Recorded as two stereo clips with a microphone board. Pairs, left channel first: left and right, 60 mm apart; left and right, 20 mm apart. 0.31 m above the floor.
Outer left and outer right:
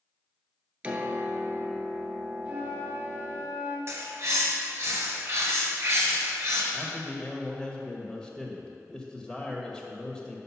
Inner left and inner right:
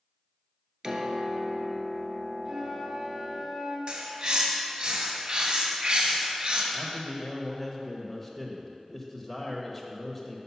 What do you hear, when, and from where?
0.8 s a piano: 25° right (ahead or behind), 0.7 m
2.5 s a flute: 35° right (ahead or behind), 1.4 m
3.9 s a bird: 50° right (ahead or behind), 1.3 m
6.7 s a man speaking: 10° left (ahead or behind), 0.8 m